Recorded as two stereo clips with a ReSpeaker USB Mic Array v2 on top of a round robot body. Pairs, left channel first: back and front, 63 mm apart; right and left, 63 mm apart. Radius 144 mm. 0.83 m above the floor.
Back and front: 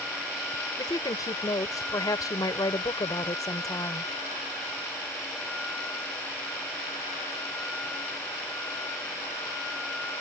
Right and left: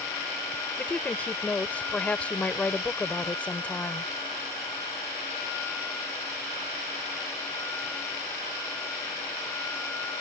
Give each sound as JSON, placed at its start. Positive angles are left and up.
{"t": 0.8, "sound": "a woman speaking", "azimuth_deg": -160}